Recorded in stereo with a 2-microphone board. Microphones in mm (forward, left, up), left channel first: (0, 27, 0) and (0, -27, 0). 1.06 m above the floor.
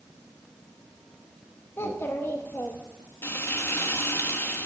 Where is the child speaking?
45° left (ahead or behind), 0.9 m.